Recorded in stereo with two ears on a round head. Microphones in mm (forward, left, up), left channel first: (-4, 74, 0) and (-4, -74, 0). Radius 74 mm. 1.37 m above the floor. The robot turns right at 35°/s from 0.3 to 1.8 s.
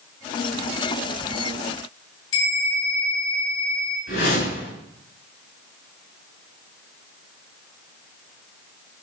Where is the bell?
85° left, 3.5 m.